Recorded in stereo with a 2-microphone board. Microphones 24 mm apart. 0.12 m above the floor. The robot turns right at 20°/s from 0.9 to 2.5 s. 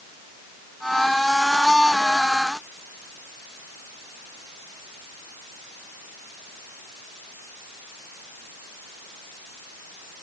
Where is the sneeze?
I don't hear a sneeze.